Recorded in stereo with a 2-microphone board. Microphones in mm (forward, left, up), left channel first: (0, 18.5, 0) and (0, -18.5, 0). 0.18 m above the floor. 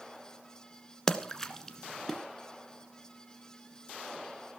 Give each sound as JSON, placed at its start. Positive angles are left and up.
{"t": 1.1, "sound": "a splash", "side_deg": 10, "distance_m": 1.3}